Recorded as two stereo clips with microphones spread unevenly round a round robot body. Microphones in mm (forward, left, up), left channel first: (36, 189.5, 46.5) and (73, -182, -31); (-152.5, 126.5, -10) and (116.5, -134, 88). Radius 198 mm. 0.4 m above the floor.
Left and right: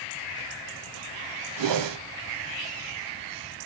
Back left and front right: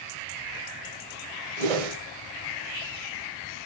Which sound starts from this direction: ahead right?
A whoosh, at 1.6 s.